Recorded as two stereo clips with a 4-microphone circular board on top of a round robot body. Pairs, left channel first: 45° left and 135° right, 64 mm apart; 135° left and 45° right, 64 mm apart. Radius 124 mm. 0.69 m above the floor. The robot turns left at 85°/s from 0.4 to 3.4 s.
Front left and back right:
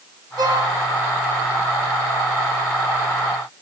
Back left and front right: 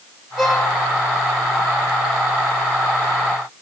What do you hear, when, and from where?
0.4 s a violin: 130° right, 8 m; by 0.7 s 155° right, 8 m